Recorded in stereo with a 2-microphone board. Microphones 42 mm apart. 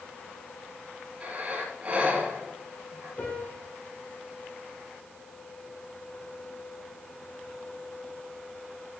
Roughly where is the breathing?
Right.